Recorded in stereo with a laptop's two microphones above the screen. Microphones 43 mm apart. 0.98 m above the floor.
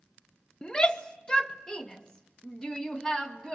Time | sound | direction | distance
0.6 | a shout | 20° left (ahead or behind) | 1.1 m